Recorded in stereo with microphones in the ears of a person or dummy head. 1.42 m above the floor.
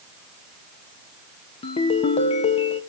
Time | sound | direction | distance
1.6 | a ringtone | 35° left (ahead or behind) | 1.0 m